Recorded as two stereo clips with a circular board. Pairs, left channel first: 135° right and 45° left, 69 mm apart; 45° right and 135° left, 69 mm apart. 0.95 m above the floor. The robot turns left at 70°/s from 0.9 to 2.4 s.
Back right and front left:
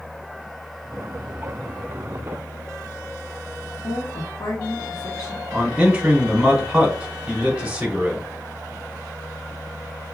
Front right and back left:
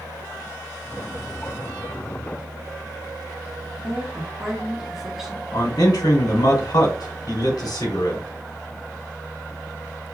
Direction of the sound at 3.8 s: 140° right.